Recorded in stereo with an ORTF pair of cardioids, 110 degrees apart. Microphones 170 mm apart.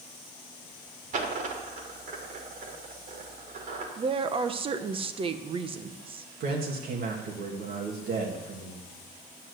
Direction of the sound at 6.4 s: 65° right.